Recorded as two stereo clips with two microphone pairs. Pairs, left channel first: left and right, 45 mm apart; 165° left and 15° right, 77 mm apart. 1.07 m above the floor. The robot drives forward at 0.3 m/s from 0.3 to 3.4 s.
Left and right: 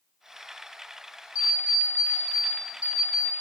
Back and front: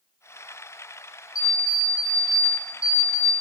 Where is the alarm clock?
155° right, 1.5 m; by 3.3 s 160° right, 2 m.